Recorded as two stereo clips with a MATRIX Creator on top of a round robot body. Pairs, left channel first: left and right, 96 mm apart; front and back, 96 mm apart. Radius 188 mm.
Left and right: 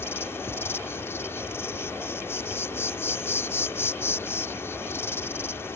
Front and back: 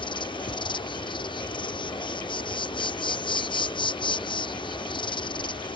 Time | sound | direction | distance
0.0 | an insect | 30° left | ?